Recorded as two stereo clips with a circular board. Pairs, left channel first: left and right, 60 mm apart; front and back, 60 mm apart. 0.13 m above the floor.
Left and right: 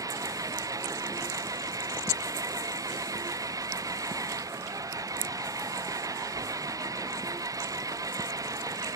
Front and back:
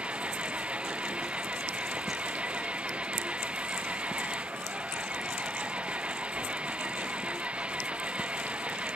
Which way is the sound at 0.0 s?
110° right.